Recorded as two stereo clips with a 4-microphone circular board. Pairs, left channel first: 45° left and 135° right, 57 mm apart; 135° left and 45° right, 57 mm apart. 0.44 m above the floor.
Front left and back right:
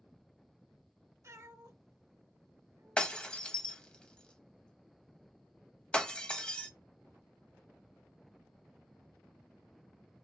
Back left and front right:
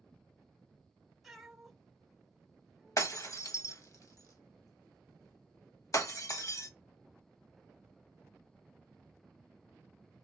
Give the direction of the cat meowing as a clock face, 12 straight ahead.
4 o'clock.